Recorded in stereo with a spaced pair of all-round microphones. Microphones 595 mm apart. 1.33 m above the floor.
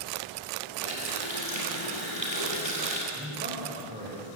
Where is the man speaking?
15° right (ahead or behind), 7 m.